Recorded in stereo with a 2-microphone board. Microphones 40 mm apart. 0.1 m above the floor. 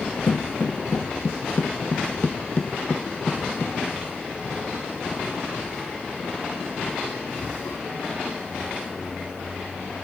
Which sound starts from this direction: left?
Footsteps, at 0.3 s.